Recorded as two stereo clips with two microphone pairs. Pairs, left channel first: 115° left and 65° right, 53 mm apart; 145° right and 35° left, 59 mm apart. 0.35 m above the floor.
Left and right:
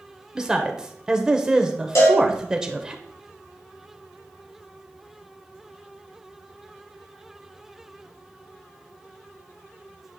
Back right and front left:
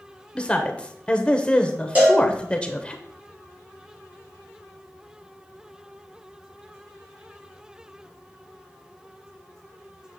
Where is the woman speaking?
115° right, 0.9 m.